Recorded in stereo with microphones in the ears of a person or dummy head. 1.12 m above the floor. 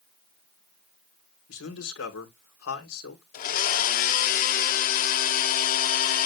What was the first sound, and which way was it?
A man speaking, 80° left.